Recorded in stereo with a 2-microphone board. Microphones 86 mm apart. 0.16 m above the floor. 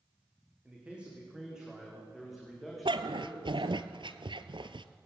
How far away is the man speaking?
About 10 m.